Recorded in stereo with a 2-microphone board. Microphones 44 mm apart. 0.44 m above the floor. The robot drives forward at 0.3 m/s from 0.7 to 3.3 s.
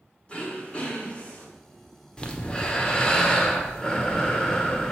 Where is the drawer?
No drawer in this recording.